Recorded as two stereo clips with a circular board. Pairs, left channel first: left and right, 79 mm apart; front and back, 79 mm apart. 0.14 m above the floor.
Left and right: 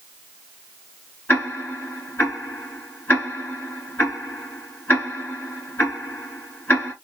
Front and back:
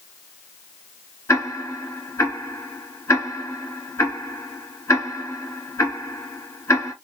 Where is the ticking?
35° left, 1.5 m.